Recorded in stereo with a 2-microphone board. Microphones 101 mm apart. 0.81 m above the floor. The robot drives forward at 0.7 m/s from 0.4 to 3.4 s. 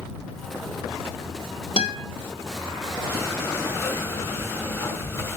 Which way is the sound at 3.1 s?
25° left (ahead or behind).